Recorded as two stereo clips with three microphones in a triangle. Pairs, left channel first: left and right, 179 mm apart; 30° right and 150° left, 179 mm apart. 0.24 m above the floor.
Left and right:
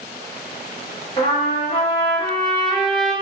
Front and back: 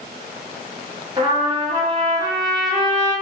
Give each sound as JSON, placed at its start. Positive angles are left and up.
{"t": 1.2, "sound": "a trumpet", "azimuth_deg": 105, "distance_m": 1.0}